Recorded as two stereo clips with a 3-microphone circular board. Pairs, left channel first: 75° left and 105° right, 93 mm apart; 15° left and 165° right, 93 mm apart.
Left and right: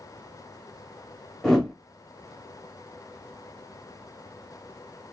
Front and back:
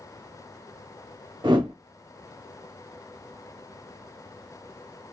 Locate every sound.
1.4 s a whoosh: 160° left, 0.8 m